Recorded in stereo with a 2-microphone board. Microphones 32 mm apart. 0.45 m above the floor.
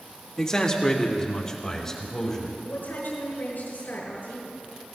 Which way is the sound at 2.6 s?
80° left.